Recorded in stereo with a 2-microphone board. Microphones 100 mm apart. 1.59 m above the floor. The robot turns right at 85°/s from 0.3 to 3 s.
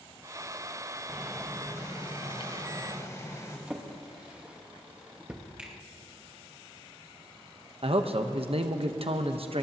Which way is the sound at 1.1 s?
20° right.